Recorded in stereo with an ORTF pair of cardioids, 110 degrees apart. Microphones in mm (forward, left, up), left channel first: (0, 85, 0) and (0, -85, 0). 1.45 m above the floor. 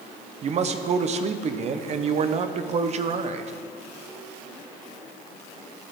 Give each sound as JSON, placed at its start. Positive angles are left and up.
{"t": 0.4, "sound": "a man speaking", "azimuth_deg": -40, "distance_m": 0.7}